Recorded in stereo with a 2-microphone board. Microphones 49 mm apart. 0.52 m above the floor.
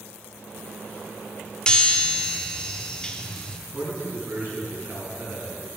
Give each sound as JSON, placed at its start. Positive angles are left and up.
{"t": 1.7, "sound": "a chime", "side_deg": 20, "distance_m": 1.0}
{"t": 3.7, "sound": "a man speaking", "side_deg": -40, "distance_m": 5.0}